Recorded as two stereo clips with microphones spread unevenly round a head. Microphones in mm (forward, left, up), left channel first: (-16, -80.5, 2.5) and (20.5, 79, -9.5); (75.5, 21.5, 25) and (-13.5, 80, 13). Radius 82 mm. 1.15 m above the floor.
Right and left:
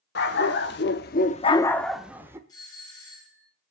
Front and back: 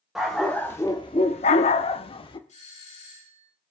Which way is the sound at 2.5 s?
35° right.